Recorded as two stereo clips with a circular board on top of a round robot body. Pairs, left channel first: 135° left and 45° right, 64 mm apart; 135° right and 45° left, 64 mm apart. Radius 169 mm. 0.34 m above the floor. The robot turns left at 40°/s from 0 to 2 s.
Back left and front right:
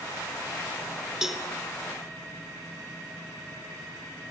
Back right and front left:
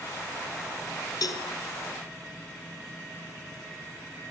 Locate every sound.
1.2 s a cowbell: 125° right, 1.9 m; by 1.4 s 135° right, 1.9 m